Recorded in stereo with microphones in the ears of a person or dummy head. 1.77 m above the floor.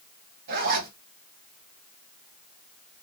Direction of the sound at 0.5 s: 55° right (ahead or behind).